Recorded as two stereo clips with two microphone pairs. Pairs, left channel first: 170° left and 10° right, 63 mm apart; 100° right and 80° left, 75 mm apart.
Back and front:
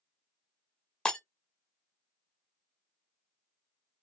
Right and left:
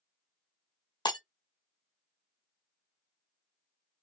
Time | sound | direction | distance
1.1 | breaking glass | 115° right | 0.6 m